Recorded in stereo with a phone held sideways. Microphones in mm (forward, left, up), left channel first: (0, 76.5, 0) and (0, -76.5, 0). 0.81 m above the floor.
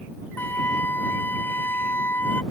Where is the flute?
10° left (ahead or behind).